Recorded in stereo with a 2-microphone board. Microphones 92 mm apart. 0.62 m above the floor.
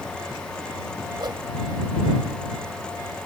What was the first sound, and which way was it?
A whoosh, 55° right (ahead or behind).